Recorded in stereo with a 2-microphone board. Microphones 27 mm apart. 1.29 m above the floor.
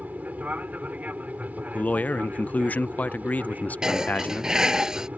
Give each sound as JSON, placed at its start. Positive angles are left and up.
{"t": 0.0, "sound": "an aircraft", "side_deg": -70}
{"t": 1.7, "sound": "a man speaking", "side_deg": 80}
{"t": 3.8, "sound": "dishes clattering", "side_deg": -30}